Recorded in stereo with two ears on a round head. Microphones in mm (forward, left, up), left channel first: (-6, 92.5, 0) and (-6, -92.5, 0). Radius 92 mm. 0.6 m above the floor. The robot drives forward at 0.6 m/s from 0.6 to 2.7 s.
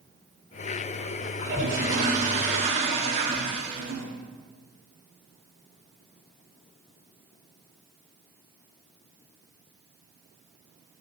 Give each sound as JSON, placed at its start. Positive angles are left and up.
{"t": 1.4, "sound": "a toilet flushing", "side_deg": -50, "distance_m": 1.9}